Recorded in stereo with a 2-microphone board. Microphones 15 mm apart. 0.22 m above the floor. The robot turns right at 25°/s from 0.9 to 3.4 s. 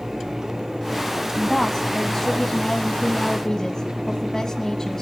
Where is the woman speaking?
30° left, 1.5 m; by 5.0 s 85° left, 1.5 m.